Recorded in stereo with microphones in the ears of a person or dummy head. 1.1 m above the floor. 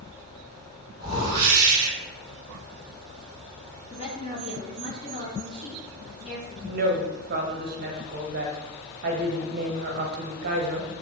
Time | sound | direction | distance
1.0 | a whoosh | 20° right (ahead or behind) | 1.9 m
3.9 | a woman speaking | 35° left (ahead or behind) | 1.6 m
6.6 | a woman speaking | 55° right (ahead or behind) | 0.6 m